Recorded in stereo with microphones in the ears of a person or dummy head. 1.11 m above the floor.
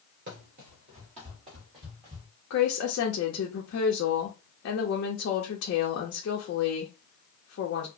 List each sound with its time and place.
0.3 s running footsteps: 45° right (ahead or behind), 1.5 m; by 2.3 s 20° right (ahead or behind), 2 m
2.5 s a woman speaking: 65° left (ahead or behind), 1.0 m